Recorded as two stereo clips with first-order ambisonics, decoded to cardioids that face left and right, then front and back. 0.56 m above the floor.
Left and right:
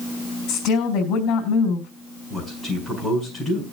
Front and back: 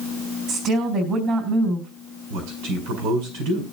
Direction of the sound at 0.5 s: 130° left.